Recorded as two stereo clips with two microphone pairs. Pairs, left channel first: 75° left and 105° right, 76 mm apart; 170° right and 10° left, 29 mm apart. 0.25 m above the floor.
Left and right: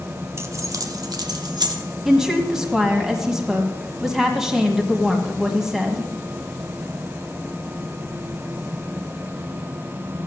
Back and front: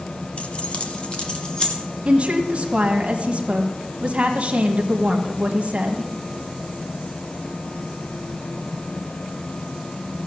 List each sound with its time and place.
0.4 s keys jangling: 145° right, 1.2 m; by 1.8 s 115° right, 2.5 m
2.0 s a woman speaking: 25° right, 1.4 m